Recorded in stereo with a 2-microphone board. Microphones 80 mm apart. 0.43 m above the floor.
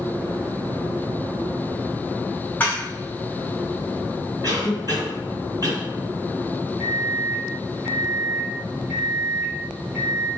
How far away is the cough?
About 1.9 m.